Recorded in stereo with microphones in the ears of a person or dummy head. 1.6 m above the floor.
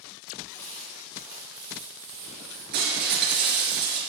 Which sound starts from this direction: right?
Breaking glass, at 2.7 s.